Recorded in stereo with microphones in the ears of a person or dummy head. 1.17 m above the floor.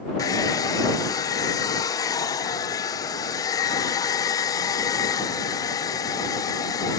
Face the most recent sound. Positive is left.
turn(degrees=20)  # may be behind; listen again after turning